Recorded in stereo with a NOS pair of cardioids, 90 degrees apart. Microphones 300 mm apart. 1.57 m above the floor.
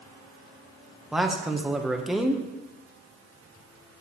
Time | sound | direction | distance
1.1 | a man speaking | straight ahead | 1.2 m